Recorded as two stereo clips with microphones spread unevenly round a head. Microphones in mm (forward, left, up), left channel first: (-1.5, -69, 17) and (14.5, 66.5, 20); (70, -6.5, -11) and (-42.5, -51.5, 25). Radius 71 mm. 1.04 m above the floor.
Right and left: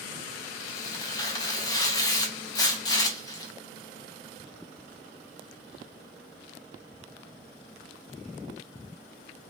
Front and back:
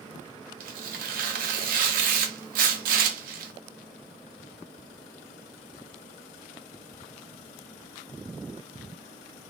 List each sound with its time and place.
0.6 s tearing paper: 155° right, 0.6 m